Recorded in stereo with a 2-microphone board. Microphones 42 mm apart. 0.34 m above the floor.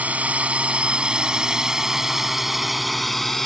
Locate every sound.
0.0 s a drone: 40° right (ahead or behind); by 3.5 s 5° left (ahead or behind)